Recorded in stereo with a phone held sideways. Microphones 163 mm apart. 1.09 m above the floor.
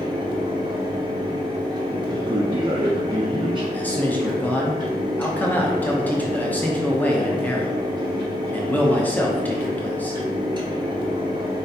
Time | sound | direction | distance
0.0 | a fan | 25° right (ahead or behind) | 1.0 m
2.1 | a man speaking | 30° right (ahead or behind) | 0.5 m
3.7 | a man speaking | 10° left (ahead or behind) | 0.6 m